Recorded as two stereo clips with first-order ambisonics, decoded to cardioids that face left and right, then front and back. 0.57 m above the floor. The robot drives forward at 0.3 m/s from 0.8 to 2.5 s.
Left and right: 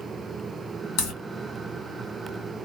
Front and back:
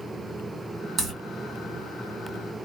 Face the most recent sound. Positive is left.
turn(degrees=120)